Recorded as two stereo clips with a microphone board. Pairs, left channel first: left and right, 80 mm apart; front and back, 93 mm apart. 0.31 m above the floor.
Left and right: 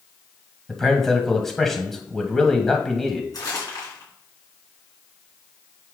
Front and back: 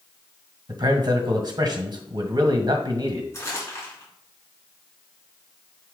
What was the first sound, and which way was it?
A man speaking, 175° left.